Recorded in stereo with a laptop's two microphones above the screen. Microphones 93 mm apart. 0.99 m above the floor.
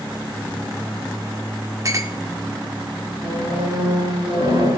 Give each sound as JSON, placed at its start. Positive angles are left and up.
{"t": 1.9, "sound": "a clink", "side_deg": -35, "distance_m": 1.8}
{"t": 3.2, "sound": "a squeak", "side_deg": -80, "distance_m": 9.0}